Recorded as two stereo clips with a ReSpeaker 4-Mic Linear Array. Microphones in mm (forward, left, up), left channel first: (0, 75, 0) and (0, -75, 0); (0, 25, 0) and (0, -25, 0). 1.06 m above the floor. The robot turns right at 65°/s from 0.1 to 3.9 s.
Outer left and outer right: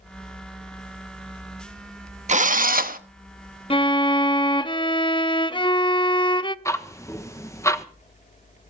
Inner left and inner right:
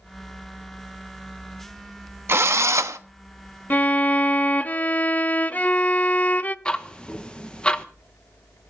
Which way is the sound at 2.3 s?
125° right.